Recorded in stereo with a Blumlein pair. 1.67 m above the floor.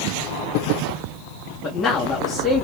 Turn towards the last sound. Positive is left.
turn(degrees=25)